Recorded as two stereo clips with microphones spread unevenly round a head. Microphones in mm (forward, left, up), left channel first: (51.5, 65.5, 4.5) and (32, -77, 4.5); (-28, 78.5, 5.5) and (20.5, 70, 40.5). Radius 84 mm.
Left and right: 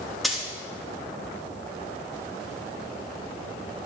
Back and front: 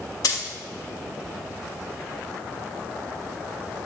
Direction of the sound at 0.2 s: 170° left.